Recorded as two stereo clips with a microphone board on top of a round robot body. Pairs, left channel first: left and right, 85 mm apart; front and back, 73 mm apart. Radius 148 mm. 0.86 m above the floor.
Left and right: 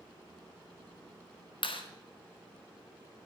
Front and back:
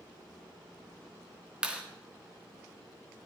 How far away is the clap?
About 2 m.